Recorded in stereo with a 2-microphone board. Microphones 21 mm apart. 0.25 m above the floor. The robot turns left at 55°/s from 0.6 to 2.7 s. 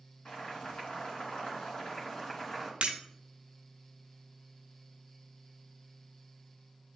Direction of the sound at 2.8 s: 85° right.